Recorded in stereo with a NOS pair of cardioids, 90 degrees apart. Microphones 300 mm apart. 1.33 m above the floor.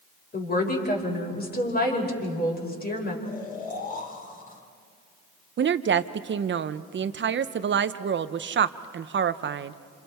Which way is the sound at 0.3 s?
30° left.